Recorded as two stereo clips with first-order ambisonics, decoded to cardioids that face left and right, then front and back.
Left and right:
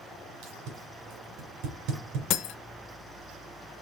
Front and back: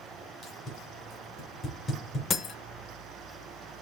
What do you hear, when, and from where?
0.4 s tape being pulled: 70° right, 2.5 m
2.3 s breaking glass: 60° left, 0.6 m